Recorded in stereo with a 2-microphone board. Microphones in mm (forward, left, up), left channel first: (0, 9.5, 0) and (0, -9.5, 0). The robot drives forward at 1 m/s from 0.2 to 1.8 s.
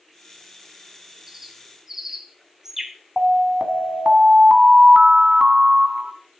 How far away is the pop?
No pop in this recording.